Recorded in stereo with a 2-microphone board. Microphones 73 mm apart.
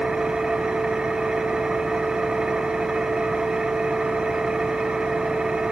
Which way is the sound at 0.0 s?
10° right (ahead or behind).